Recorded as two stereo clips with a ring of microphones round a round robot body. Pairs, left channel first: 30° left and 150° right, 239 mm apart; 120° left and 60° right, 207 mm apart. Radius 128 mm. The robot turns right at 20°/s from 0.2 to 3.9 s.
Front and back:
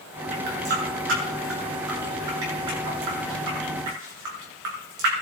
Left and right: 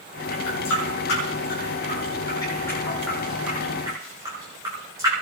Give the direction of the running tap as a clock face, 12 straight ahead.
7 o'clock.